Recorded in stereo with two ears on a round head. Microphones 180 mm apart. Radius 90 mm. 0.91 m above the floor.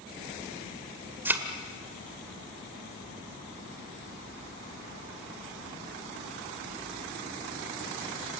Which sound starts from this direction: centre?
A thud, at 1.2 s.